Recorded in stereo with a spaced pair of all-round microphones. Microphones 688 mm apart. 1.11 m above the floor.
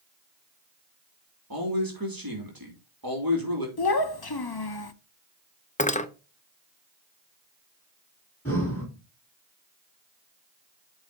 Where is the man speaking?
30° right (ahead or behind), 2 m.